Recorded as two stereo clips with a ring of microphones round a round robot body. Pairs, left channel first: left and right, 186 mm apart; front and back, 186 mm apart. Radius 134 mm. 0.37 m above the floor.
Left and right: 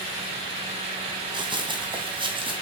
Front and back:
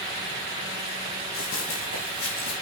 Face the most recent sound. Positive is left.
turn(degrees=-25)